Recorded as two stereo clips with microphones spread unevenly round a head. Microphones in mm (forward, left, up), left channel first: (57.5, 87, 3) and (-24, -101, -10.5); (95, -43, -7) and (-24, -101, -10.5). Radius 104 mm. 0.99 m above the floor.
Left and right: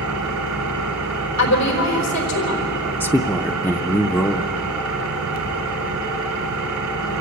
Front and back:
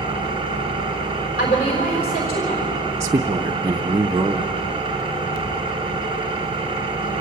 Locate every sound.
0.0 s an engine running: 105° right, 3.5 m
1.4 s a woman speaking: 70° left, 4 m
3.0 s a man speaking: 145° left, 0.5 m